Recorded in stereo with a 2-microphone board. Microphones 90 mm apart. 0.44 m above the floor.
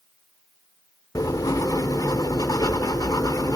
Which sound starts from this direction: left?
Writing, at 1.1 s.